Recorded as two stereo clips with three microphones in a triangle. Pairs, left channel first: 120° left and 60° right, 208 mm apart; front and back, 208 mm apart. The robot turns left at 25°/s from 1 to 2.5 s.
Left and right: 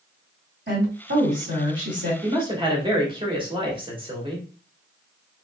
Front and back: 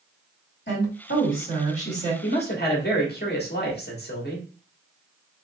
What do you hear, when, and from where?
0.7 s a woman speaking: 30° right, 2.5 m; by 2.1 s 60° right, 2.5 m
2.2 s a man speaking: 5° left, 1.3 m; by 4.5 s straight ahead, 1.3 m